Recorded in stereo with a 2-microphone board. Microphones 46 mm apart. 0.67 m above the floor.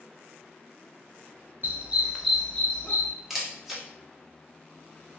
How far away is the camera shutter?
About 0.8 m.